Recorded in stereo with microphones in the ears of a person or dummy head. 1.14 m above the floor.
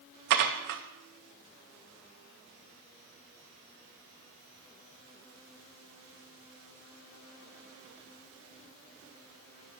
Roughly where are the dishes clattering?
Right.